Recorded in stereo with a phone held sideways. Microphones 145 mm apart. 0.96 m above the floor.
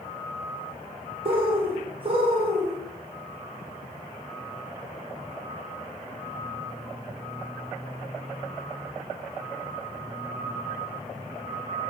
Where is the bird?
40° right (ahead or behind), 0.7 m.